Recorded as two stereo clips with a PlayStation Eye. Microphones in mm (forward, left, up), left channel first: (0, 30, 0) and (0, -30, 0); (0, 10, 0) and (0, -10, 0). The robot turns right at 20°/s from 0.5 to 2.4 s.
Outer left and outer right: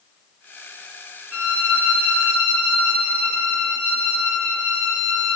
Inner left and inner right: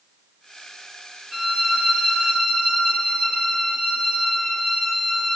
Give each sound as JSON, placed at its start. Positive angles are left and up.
{"t": 1.3, "sound": "a violin", "side_deg": -35, "distance_m": 0.8}